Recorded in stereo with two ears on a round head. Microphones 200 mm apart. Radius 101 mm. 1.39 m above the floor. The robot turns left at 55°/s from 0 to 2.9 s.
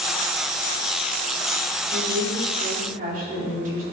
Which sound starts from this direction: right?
A woman speaking, at 1.9 s.